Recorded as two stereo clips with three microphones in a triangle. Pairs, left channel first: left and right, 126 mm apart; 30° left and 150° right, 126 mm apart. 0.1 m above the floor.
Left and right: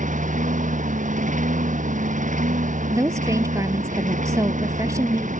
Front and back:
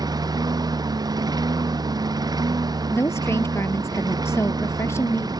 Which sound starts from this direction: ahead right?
A woman speaking, at 2.9 s.